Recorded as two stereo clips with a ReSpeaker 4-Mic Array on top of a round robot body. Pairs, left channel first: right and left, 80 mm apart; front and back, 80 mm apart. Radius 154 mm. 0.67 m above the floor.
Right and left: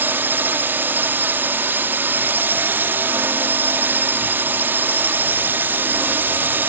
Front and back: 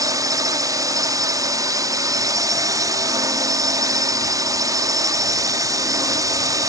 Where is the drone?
150° left.